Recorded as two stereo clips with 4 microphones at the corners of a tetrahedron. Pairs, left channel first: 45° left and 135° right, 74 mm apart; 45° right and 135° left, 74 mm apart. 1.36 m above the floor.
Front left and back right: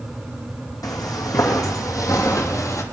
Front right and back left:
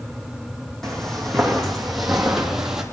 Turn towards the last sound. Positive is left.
turn(degrees=55)